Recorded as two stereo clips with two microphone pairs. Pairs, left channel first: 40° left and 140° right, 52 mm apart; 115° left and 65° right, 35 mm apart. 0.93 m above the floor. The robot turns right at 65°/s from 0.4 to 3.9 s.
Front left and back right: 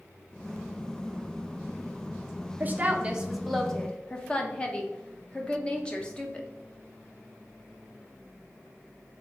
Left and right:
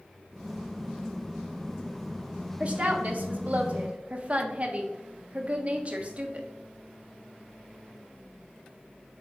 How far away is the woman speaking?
About 0.7 m.